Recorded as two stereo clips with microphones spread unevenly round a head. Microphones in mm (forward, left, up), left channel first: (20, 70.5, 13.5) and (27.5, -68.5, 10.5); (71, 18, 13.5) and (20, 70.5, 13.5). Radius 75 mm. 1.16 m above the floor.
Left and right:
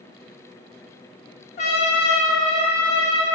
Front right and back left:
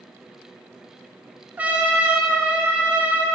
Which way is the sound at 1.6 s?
70° left.